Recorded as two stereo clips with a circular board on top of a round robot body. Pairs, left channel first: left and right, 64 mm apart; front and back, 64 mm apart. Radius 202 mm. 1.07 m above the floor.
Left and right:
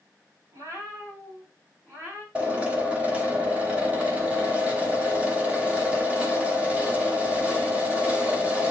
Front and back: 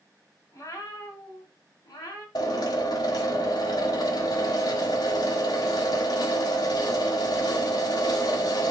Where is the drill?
20° right, 1.4 m.